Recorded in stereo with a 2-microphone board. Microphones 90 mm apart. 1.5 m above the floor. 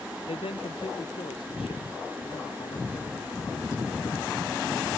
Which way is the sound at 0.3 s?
75° left (ahead or behind).